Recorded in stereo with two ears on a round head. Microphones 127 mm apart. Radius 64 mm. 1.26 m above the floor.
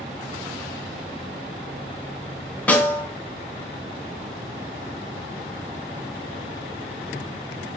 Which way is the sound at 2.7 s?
10° left (ahead or behind).